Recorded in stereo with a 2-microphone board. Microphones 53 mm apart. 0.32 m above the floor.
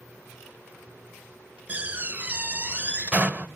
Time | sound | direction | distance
1.7 | a door slam | 30° right (ahead or behind) | 0.7 m